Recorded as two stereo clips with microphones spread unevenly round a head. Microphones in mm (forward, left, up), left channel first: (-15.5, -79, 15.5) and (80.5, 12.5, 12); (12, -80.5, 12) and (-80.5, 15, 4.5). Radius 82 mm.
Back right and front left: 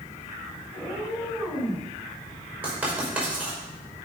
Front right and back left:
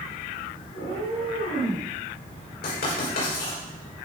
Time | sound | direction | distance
0.7 | a cat meowing | 30° right | 6 m
2.6 | writing | 35° right | 5 m